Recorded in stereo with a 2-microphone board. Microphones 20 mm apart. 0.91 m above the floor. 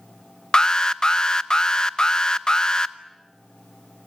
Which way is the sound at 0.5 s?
40° left (ahead or behind).